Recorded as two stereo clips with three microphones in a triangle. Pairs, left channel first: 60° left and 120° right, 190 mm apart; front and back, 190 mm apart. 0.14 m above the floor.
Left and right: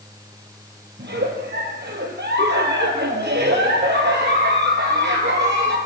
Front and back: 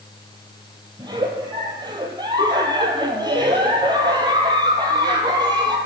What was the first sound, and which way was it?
A giggle, 115° right.